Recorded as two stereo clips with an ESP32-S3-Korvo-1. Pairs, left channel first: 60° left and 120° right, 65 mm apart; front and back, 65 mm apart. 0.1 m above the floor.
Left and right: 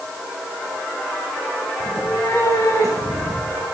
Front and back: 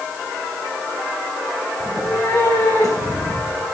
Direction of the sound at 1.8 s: 25° left.